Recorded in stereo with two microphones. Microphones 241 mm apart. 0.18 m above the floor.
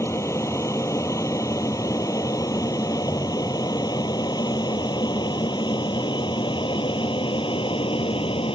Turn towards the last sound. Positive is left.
turn(degrees=20)  # may be behind; listen again after turning